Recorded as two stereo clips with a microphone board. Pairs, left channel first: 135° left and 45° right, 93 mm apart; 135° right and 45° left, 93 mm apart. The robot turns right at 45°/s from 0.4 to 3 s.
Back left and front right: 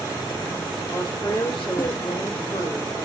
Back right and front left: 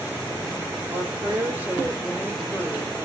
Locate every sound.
0.9 s a woman speaking: 85° left, 4.5 m; by 3.0 s straight behind, 4.5 m